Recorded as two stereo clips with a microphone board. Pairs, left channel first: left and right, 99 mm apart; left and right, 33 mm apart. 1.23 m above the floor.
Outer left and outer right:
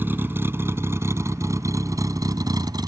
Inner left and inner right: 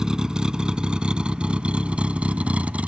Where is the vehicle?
20° right (ahead or behind); by 2.9 s 45° right (ahead or behind).